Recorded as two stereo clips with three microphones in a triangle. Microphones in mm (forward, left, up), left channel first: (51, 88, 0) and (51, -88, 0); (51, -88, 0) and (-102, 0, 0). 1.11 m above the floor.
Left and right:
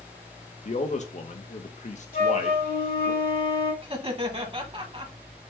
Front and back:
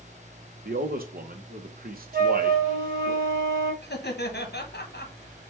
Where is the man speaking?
130° left, 0.9 m.